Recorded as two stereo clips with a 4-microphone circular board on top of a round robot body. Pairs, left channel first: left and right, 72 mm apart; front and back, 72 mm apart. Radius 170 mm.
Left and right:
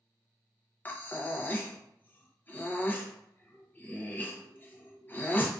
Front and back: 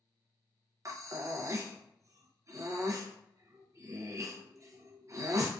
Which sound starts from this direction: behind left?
Breathing, at 0.8 s.